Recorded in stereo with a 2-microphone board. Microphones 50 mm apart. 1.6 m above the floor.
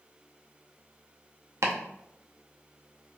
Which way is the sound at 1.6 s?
75° right (ahead or behind).